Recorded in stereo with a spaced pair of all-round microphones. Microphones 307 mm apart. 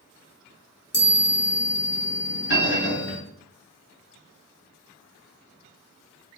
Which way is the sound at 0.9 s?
30° left (ahead or behind).